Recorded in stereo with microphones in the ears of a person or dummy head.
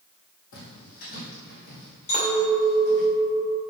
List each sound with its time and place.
0.5 s footsteps: 50° left (ahead or behind), 3 m; by 3.1 s 35° left (ahead or behind), 5 m
2.1 s a clink: 40° left (ahead or behind), 3 m